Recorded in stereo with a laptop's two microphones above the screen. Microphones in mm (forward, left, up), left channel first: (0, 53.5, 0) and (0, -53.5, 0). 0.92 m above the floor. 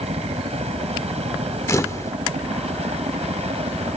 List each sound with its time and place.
0.0 s a helicopter: 75° right (ahead or behind)
1.7 s a camera shutter: 25° left (ahead or behind)